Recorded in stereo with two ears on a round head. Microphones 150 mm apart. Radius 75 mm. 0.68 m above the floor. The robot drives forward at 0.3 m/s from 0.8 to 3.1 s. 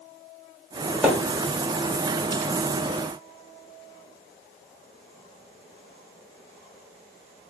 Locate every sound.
1.0 s a splash: 10° right (ahead or behind), 1.1 m